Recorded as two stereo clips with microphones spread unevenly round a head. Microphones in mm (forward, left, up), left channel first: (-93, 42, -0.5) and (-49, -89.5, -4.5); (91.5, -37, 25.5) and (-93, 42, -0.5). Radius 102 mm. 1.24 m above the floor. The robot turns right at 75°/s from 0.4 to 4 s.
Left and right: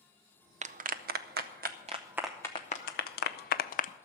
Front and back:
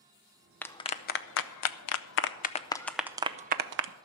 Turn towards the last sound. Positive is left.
turn(degrees=145)